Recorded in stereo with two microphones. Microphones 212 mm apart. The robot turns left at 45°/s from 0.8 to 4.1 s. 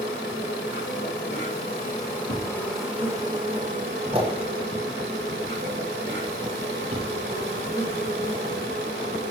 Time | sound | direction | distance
0.0 | an insect | 90° left | 4 m
2.3 | a thud | 50° left (ahead or behind) | 6 m